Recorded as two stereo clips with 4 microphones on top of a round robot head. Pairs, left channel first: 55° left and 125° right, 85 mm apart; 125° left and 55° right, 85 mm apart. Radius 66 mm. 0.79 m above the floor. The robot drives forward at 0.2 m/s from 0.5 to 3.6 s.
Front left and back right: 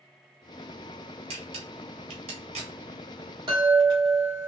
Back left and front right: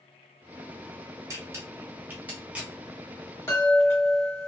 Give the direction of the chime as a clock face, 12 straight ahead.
6 o'clock.